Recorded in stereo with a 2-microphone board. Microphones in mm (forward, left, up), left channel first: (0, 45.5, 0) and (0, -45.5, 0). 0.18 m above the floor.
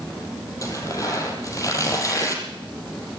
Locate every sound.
0.6 s tearing paper: 35° left (ahead or behind), 6 m